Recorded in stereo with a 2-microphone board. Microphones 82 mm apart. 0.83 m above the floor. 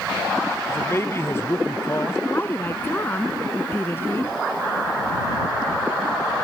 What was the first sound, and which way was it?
A man speaking, 30° left (ahead or behind).